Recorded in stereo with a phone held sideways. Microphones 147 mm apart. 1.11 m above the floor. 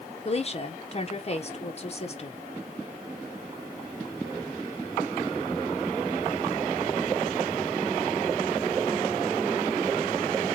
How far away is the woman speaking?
About 0.8 m.